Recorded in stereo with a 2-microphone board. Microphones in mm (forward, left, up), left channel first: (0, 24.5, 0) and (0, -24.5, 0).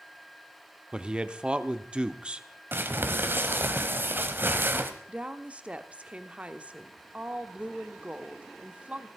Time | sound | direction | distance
0.9 | a man speaking | 20° right (ahead or behind) | 0.8 m
2.7 | crumpling | 45° right (ahead or behind) | 1.2 m
5.1 | a woman speaking | 25° right (ahead or behind) | 0.9 m